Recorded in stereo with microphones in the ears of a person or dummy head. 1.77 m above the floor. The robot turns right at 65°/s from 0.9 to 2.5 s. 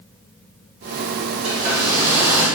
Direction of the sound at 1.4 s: 75° right.